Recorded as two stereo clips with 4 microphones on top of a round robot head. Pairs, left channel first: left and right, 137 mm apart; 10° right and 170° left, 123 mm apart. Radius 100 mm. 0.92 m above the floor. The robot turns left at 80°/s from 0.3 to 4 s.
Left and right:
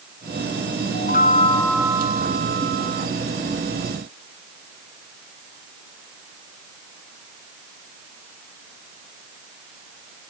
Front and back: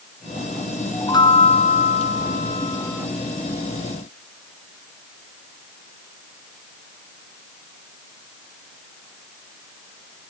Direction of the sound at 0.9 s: 65° left.